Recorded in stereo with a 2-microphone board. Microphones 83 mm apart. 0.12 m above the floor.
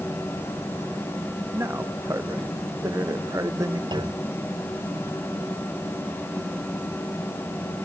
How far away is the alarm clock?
I don't hear an alarm clock.